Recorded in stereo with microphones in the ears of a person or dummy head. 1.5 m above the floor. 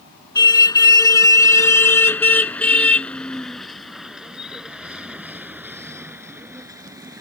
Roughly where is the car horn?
Left.